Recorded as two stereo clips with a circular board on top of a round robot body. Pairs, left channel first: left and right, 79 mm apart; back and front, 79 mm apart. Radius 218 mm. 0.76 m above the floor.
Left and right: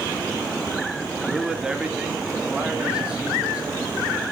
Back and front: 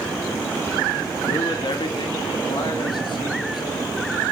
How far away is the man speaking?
About 3 m.